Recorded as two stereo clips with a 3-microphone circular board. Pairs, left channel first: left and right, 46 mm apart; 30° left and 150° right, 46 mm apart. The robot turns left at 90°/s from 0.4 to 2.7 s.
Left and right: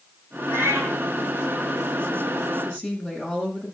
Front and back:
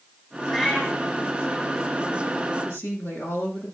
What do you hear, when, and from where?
0.5 s a cat meowing: 65° right, 3 m; by 1.0 s 110° right, 3 m
2.6 s a woman speaking: 35° left, 7 m; by 3.8 s 25° left, 7 m